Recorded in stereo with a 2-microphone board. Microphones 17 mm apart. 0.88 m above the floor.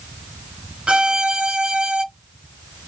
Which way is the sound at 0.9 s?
65° right (ahead or behind).